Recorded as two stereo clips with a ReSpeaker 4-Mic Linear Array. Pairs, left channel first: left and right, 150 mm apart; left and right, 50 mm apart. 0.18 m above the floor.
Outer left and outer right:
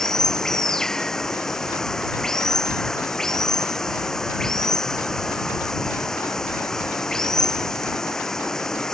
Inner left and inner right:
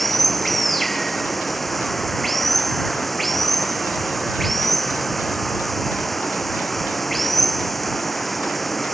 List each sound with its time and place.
0.0 s running water: 5° left (ahead or behind)